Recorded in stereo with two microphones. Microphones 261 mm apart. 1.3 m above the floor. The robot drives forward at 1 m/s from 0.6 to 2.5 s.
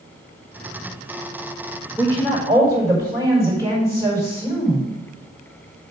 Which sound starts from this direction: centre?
A woman speaking, at 2.0 s.